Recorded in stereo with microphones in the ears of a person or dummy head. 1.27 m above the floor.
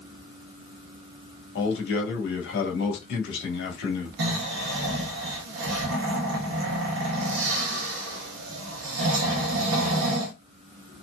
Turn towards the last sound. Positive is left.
turn(degrees=-75)  # may be behind; listen again after turning